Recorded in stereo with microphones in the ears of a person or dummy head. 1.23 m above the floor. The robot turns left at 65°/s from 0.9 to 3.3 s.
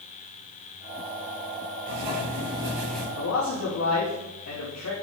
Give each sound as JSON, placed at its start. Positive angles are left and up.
{"t": 1.9, "sound": "writing", "azimuth_deg": -105, "distance_m": 4.5}
{"t": 3.2, "sound": "a man speaking", "side_deg": 75, "distance_m": 2.0}